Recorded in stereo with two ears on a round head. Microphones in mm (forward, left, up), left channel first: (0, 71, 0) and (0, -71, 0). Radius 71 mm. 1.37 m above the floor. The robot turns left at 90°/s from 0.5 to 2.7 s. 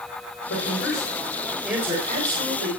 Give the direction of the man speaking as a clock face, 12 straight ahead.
9 o'clock.